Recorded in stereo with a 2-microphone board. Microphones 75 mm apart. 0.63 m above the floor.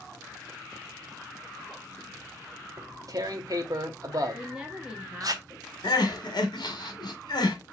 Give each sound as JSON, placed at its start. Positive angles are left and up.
{"t": 2.8, "sound": "tearing paper", "side_deg": -50, "distance_m": 0.7}
{"t": 4.3, "sound": "a woman speaking", "side_deg": -15, "distance_m": 1.0}
{"t": 5.8, "sound": "crying", "side_deg": 65, "distance_m": 1.0}